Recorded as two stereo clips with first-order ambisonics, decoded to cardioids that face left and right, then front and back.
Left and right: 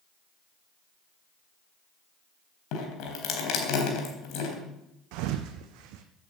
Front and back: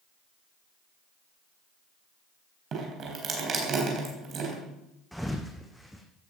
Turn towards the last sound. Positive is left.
turn(degrees=-90)